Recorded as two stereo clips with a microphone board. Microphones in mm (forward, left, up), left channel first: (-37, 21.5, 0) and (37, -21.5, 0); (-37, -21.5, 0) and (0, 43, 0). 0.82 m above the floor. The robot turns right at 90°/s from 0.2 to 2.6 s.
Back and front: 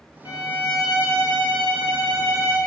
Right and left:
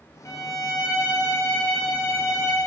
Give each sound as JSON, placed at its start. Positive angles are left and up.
{"t": 0.2, "sound": "a violin", "azimuth_deg": -170, "distance_m": 0.8}